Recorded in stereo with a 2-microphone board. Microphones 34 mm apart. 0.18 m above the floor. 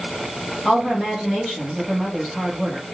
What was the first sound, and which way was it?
A woman speaking, 5° left (ahead or behind).